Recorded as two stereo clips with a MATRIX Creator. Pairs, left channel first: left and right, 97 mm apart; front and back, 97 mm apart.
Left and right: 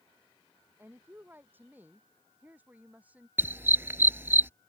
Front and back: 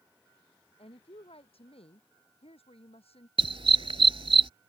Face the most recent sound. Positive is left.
turn(degrees=-160)